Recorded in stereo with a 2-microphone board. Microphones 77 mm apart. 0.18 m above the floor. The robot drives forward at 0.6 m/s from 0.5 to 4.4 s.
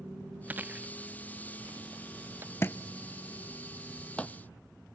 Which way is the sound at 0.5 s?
20° right (ahead or behind).